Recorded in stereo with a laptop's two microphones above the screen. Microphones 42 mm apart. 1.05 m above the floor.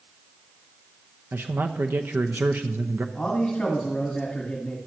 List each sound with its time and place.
1.3 s a man speaking: 60° right (ahead or behind), 0.7 m
3.1 s a man speaking: 25° left (ahead or behind), 1.6 m